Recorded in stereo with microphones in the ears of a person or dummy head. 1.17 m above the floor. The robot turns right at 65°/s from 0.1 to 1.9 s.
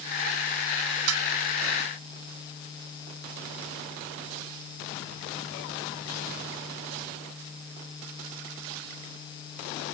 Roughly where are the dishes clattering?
Right.